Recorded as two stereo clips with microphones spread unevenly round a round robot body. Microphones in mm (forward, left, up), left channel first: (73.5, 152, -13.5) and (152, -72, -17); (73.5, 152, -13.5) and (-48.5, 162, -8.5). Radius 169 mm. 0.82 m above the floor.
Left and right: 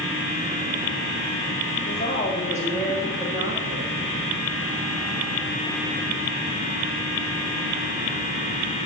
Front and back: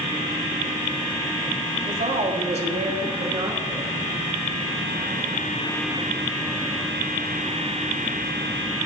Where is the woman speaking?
175° left, 1.6 m; by 3.9 s 105° right, 1.1 m.